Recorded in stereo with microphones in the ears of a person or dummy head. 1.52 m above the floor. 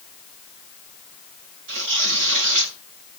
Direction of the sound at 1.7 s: 70° right (ahead or behind).